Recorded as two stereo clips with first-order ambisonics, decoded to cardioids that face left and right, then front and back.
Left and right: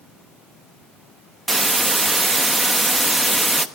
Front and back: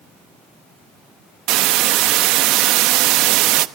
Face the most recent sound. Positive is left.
turn(degrees=-170)